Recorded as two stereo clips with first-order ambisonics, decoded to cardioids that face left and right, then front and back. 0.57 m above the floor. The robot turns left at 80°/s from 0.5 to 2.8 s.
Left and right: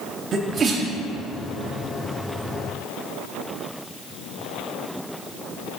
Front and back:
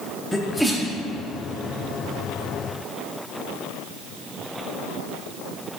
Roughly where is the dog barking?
No dog barking in this recording.